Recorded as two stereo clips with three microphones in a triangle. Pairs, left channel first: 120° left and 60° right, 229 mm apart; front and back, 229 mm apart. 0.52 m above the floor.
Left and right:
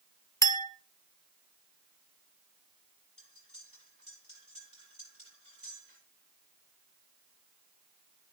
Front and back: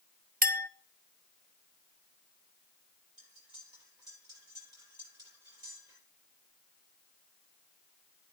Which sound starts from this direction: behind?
A clink, at 0.4 s.